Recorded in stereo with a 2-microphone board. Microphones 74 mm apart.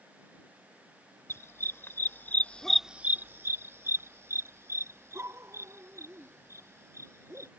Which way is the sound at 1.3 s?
40° left (ahead or behind).